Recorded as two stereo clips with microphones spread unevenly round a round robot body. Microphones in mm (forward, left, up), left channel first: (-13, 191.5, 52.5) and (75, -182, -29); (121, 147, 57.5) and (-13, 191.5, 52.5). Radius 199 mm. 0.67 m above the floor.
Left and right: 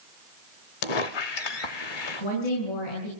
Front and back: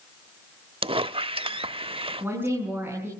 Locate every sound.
0.8 s a squeak: 110° left, 0.8 m
2.2 s a woman speaking: 85° left, 7 m